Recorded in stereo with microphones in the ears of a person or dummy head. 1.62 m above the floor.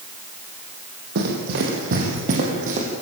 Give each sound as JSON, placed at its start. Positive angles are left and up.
{"t": 1.1, "sound": "running footsteps", "side_deg": -55, "distance_m": 4.0}